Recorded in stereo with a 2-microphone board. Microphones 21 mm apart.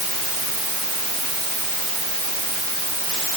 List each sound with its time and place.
Only background noise.